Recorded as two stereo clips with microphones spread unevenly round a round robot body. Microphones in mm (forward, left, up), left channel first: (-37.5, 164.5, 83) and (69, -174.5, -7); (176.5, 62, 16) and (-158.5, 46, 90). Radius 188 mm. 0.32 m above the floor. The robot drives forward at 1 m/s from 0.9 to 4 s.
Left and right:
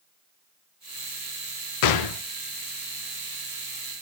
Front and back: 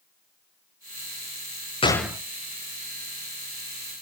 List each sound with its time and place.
1.8 s a gunshot: 65° left, 0.8 m; by 2.2 s 100° left, 0.8 m